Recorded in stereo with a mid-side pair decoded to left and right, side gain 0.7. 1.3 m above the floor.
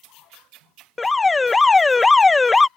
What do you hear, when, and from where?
1.0 s an alarm: 15° left